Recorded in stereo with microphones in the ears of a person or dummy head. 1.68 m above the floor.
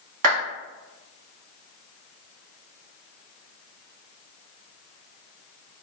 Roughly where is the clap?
Right.